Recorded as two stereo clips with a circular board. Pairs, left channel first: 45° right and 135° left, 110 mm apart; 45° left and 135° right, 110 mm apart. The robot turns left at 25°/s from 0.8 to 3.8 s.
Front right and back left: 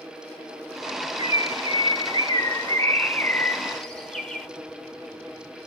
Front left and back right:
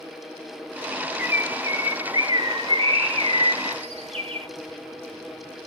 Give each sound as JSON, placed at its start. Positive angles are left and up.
{"t": 1.2, "sound": "a bird", "azimuth_deg": -60, "distance_m": 1.1}